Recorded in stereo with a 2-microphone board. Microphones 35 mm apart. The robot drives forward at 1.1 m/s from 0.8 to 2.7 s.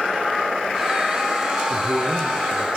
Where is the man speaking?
80° right, 7.5 m; by 2.7 s 75° right (ahead or behind), 8 m.